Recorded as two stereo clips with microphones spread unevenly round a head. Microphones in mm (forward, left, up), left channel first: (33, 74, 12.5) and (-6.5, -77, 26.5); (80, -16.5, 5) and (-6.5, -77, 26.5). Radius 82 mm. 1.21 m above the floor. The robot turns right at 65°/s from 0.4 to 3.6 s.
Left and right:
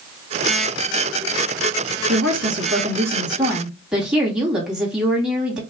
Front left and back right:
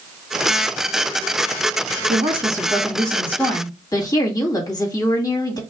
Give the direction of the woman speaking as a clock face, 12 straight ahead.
4 o'clock.